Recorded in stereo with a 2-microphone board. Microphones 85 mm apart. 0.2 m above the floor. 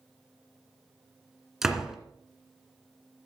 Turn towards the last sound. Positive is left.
turn(degrees=-5)  # may be behind; listen again after turning